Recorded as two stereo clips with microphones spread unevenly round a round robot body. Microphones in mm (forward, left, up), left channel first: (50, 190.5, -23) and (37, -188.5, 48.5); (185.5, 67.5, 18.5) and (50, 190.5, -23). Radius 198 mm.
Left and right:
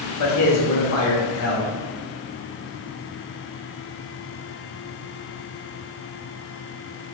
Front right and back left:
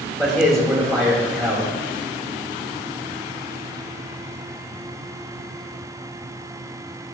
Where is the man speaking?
55° left, 2.5 m.